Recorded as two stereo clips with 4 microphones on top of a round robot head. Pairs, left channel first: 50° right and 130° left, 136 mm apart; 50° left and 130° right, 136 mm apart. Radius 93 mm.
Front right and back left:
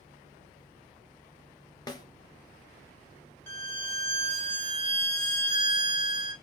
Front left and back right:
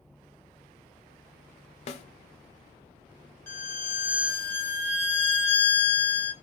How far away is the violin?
About 1.6 m.